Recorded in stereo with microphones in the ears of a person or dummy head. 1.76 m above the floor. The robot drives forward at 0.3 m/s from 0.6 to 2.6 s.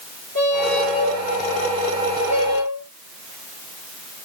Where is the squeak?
50° right (ahead or behind), 2 m; by 2.9 s 40° right (ahead or behind), 2.5 m.